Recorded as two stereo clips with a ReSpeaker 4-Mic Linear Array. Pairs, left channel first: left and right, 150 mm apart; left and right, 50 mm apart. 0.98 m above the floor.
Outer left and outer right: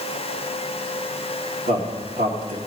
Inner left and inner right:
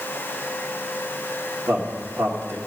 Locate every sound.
1.7 s a man speaking: 70° right (ahead or behind), 2 m